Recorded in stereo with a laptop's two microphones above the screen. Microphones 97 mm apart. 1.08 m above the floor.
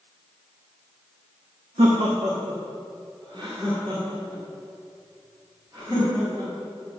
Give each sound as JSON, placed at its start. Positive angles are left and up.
{"t": 1.8, "sound": "laughter", "side_deg": -80, "distance_m": 1.1}